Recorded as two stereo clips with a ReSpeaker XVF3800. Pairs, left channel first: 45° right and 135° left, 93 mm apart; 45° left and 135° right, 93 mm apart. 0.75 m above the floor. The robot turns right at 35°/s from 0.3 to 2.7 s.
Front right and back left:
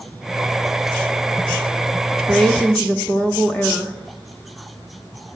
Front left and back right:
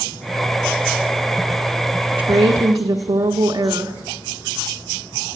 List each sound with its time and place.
2.1 s a woman speaking: 135° right, 0.9 m; by 4.0 s 115° right, 0.9 m